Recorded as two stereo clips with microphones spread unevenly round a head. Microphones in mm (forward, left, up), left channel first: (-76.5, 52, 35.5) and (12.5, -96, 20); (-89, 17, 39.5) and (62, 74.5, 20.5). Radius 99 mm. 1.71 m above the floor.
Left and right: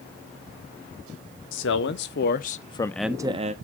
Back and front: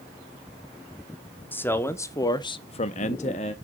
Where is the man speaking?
125° left, 1.2 m; by 3.5 s 105° right, 0.7 m.